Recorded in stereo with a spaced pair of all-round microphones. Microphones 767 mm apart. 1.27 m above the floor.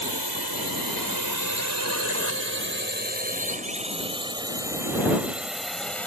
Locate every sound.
0.0 s a drone: 35° right (ahead or behind); by 6.1 s centre (ahead or behind)